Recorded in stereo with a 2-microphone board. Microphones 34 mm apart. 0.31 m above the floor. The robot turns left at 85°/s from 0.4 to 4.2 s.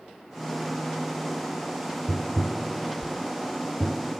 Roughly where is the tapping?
Centre.